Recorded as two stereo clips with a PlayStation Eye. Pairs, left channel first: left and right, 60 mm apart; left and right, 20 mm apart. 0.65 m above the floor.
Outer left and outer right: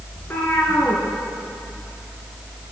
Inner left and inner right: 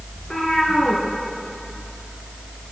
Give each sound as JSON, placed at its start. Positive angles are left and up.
{"t": 0.2, "sound": "a cat meowing", "side_deg": 35, "distance_m": 1.8}